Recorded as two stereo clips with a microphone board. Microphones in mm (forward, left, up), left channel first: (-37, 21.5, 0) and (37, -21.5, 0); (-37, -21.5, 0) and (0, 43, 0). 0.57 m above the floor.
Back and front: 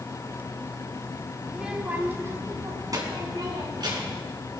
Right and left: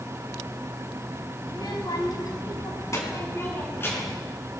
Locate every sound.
1.5 s a child speaking: 115° right, 2.5 m; by 4.2 s 60° right, 5 m